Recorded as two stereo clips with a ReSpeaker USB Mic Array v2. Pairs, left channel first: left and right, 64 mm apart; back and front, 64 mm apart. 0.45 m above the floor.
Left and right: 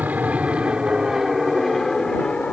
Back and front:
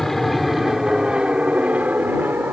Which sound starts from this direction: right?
An aircraft, at 0.0 s.